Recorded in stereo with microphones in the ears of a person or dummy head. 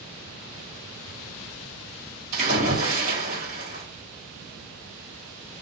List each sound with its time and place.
2.3 s a splash: 45° right (ahead or behind), 1.6 m